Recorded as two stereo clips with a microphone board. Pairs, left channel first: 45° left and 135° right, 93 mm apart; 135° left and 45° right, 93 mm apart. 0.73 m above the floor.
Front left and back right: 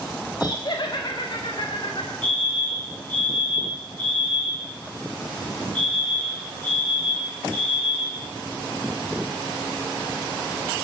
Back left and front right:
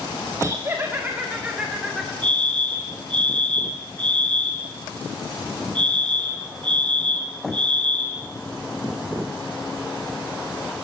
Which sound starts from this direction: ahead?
Laughter, at 0.4 s.